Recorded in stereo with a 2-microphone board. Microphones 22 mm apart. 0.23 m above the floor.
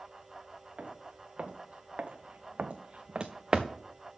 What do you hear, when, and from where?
0.8 s footsteps: 70° right (ahead or behind), 1.5 m; by 3.7 s 25° right (ahead or behind), 0.9 m